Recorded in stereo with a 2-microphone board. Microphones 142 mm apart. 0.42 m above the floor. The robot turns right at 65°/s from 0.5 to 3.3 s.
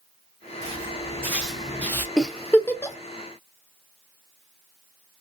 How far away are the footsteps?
About 1.7 m.